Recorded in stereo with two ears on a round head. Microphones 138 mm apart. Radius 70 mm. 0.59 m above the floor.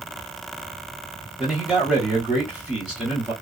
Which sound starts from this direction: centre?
A man speaking, at 1.4 s.